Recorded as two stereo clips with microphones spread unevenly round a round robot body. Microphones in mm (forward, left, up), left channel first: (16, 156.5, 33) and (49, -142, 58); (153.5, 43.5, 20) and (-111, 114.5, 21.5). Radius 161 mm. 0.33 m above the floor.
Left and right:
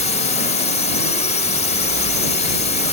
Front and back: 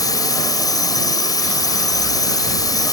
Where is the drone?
55° left.